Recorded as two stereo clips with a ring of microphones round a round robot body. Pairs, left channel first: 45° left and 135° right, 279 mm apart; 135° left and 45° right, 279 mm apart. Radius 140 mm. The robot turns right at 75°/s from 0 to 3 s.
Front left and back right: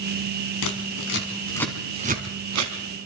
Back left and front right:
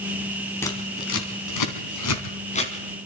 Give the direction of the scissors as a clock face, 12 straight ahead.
10 o'clock.